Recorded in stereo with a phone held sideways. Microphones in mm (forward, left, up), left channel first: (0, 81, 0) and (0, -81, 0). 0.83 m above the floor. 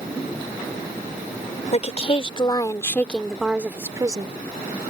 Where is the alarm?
I don't hear an alarm.